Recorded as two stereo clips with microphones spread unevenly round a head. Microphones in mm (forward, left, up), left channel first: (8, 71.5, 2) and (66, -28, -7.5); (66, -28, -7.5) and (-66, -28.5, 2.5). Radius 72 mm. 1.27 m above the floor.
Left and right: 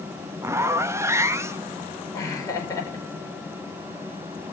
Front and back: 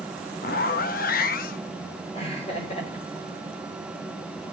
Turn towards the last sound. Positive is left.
turn(degrees=55)